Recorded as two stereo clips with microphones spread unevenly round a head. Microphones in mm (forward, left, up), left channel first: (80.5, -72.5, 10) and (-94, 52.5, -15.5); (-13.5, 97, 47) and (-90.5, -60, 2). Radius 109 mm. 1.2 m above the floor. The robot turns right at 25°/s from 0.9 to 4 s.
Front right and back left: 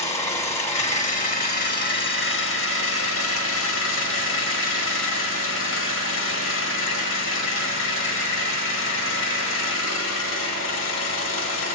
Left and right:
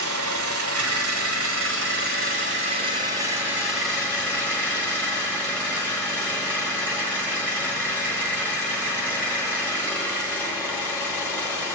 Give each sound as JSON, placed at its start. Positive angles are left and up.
{"t": 0.0, "sound": "an engine running", "azimuth_deg": -90, "distance_m": 1.3}